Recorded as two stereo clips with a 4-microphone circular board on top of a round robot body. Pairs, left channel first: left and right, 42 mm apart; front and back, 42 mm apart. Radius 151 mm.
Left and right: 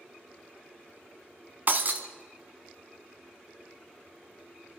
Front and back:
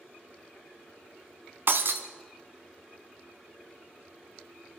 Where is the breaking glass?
140° right, 0.8 m.